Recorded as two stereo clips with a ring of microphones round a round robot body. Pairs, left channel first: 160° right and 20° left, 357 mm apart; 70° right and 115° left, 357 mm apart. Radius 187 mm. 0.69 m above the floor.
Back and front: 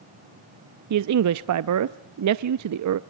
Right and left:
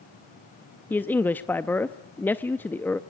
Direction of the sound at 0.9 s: 15° left.